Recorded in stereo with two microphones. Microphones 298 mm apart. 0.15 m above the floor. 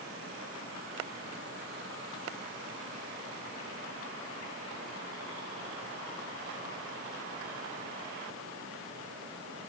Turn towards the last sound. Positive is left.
No sound to turn to.